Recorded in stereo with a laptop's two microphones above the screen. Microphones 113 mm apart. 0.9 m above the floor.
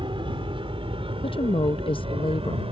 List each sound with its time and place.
0.0 s an aircraft: 50° right (ahead or behind); by 2.7 s 55° right (ahead or behind)
1.2 s a woman speaking: 50° left (ahead or behind)